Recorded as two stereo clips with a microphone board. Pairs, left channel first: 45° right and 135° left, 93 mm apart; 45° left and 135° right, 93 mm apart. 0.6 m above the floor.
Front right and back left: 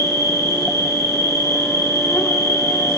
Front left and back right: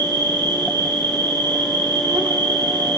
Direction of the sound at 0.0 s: 105° right.